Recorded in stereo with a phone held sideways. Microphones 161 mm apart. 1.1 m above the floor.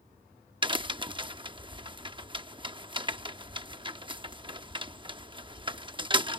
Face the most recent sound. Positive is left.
turn(degrees=-30)  # may be behind; listen again after turning